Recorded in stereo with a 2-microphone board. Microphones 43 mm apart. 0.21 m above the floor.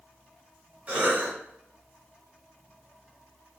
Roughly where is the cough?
Right.